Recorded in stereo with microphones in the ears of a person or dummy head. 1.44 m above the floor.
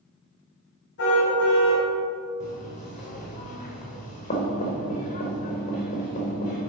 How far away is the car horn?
About 5 m.